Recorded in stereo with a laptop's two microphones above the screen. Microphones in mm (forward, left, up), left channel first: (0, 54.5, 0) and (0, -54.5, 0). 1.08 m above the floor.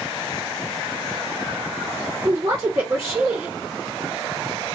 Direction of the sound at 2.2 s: 35° right (ahead or behind).